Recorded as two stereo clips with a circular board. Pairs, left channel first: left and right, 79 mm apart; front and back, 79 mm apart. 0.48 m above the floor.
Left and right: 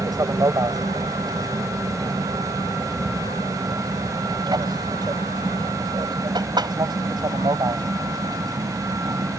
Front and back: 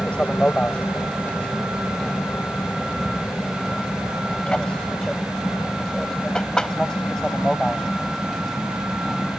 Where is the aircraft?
75° right; by 9.4 s 85° right.